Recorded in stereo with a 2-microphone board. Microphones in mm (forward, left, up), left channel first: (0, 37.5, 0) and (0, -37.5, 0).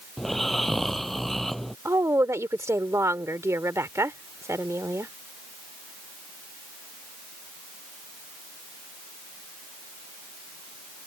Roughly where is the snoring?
Centre.